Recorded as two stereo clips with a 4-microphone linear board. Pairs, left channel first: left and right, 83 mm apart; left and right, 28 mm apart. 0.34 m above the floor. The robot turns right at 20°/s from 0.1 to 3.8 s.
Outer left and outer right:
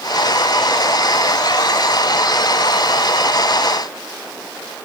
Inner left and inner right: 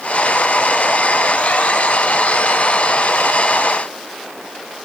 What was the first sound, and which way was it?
Only background noise.